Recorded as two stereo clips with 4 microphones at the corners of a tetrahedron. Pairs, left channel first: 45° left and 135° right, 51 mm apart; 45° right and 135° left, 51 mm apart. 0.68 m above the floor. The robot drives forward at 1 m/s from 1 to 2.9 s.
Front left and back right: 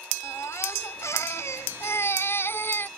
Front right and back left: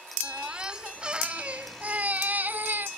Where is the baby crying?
65° left; by 2.9 s 90° left.